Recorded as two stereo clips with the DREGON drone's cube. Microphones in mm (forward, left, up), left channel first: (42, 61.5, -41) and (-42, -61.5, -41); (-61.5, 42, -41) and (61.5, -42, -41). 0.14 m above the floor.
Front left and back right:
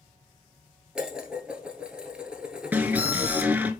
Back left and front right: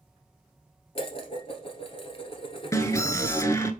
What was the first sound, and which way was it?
Dishes clattering, 155° left.